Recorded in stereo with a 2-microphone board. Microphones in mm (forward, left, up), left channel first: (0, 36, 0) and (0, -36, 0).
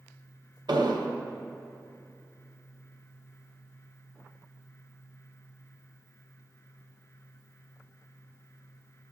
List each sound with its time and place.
0.7 s an explosion: 75° right (ahead or behind), 0.8 m